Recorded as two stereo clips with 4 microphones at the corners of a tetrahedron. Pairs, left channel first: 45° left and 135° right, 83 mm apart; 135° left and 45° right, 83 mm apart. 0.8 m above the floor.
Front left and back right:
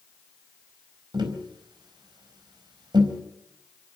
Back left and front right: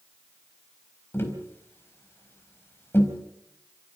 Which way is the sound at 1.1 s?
165° right.